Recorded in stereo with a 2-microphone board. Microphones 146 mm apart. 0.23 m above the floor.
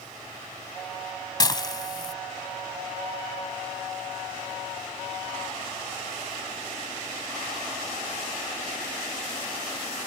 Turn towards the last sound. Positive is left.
turn(degrees=30)  # may be behind; listen again after turning